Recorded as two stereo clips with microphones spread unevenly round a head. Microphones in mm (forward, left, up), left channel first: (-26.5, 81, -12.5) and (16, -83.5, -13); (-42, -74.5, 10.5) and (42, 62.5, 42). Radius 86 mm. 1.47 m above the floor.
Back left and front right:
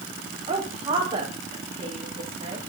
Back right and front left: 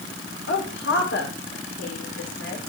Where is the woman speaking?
135° right, 4.5 m.